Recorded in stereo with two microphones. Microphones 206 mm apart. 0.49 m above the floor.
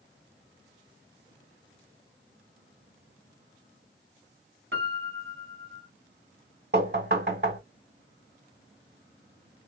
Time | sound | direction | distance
4.7 | a piano | 75° right (ahead or behind) | 0.8 m
6.7 | knocking | 50° right (ahead or behind) | 2 m